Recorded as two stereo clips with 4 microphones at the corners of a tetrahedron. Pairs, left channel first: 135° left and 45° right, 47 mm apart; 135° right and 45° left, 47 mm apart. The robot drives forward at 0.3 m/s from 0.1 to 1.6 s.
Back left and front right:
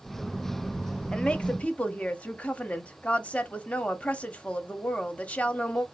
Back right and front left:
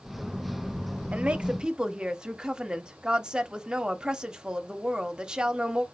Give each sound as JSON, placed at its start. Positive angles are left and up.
{"t": 1.1, "sound": "a woman speaking", "azimuth_deg": 80, "distance_m": 0.6}